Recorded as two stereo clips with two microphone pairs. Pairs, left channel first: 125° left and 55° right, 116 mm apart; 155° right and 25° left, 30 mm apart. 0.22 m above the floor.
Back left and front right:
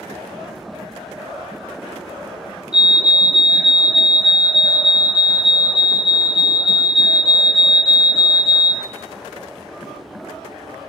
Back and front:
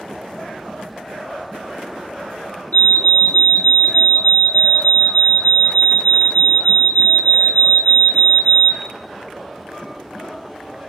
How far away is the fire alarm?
About 3 m.